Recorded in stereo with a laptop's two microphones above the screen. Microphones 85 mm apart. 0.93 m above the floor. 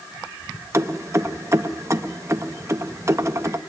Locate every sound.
0.7 s keys jangling: 35° right (ahead or behind), 0.6 m